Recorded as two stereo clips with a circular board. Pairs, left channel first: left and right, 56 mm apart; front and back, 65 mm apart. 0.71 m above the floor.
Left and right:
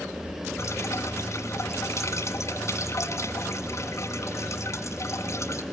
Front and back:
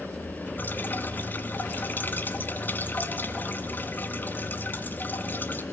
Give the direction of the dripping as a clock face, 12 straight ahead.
10 o'clock.